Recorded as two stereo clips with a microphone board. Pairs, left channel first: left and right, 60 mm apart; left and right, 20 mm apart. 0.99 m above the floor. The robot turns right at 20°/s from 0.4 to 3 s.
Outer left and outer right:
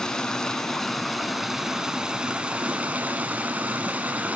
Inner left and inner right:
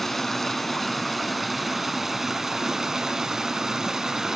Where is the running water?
165° left, 1.1 m; by 4.4 s 145° right, 1.1 m.